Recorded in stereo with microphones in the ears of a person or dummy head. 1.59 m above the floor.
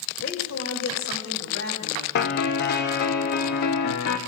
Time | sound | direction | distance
0.2 | a woman speaking | 65° left (ahead or behind) | 2.5 m
2.1 | a piano | 55° left (ahead or behind) | 1.0 m